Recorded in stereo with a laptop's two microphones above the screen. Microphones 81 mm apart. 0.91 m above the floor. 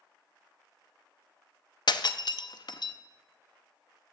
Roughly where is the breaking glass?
Left.